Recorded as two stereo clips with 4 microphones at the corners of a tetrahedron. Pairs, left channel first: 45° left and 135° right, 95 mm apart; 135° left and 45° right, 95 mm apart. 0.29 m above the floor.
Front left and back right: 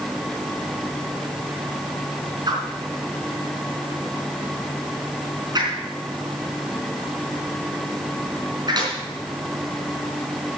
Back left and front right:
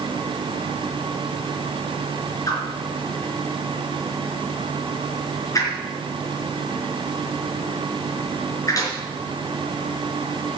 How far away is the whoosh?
About 4 m.